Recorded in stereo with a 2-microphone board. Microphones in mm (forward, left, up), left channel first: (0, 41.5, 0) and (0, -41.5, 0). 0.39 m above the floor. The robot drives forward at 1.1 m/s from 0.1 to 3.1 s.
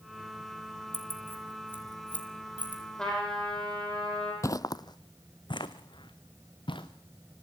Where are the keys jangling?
25° left (ahead or behind), 4 m; by 2.8 s 20° left (ahead or behind), 6 m.